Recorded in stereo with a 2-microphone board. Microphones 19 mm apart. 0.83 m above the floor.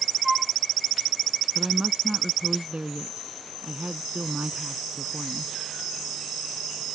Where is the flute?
20° right (ahead or behind).